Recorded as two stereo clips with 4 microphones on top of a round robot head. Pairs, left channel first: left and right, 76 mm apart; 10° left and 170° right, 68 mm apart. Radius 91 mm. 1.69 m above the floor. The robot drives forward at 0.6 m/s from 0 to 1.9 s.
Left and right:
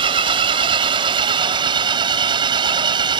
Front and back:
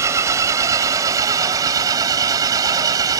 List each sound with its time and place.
0.0 s an engine running: 110° right; by 3.2 s 125° right